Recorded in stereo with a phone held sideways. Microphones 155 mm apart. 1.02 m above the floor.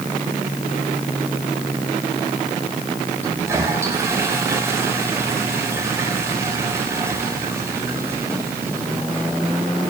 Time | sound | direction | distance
3.2 | a toilet flushing | 15° right (ahead or behind) | 5 m